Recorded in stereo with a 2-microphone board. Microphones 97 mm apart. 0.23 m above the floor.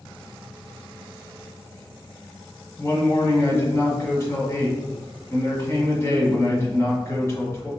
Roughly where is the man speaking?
Left.